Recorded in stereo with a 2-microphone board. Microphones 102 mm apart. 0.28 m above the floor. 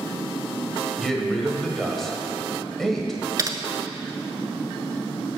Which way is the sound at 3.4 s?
35° right (ahead or behind).